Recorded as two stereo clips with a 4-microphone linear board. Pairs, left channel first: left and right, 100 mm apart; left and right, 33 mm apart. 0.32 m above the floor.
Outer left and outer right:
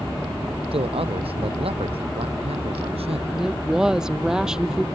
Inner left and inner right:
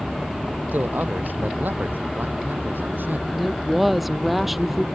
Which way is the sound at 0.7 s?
65° right (ahead or behind).